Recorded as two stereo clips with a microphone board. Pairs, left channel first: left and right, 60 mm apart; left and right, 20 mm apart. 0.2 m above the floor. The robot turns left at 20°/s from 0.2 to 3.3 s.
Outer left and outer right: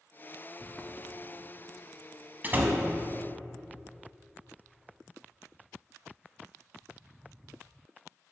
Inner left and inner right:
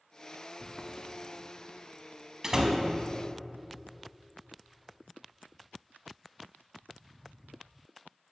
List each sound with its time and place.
0.6 s footsteps: 30° left (ahead or behind), 0.8 m; by 1.8 s 60° right (ahead or behind), 1.6 m
2.4 s a door slam: 35° right (ahead or behind), 0.8 m; by 2.8 s 30° right (ahead or behind), 0.8 m